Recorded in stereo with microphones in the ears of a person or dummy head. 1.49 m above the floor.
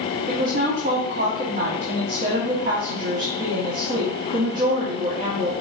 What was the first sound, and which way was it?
A woman speaking, 45° right (ahead or behind).